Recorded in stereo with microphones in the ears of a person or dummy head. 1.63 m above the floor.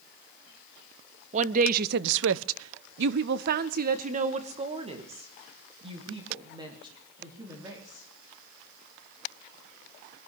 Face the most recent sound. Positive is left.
turn(degrees=-20)  # may be behind; listen again after turning